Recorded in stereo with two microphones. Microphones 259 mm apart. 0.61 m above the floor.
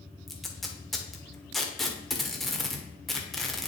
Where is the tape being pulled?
Centre (ahead or behind), 1.2 m.